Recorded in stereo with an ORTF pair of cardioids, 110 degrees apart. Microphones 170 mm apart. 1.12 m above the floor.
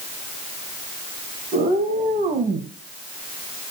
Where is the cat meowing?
55° right, 4 m; by 2.7 s 40° right, 2.5 m.